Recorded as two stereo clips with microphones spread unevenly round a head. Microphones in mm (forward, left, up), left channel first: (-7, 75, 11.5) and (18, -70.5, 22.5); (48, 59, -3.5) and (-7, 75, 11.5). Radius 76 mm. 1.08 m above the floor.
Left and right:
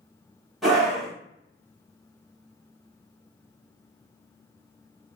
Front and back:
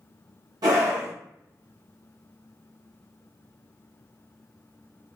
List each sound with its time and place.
0.6 s a scream: 175° right, 1.3 m